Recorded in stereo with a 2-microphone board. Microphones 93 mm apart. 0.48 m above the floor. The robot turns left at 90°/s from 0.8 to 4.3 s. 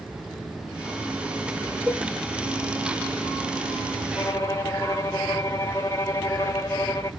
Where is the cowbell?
Centre (ahead or behind), 1.3 m; by 2.0 s 5° right (ahead or behind), 1.3 m.